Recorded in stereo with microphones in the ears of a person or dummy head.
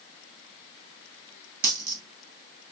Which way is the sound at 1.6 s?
55° right (ahead or behind).